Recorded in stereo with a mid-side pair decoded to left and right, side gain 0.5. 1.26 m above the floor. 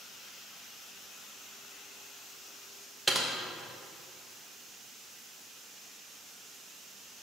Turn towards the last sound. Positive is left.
turn(degrees=-15)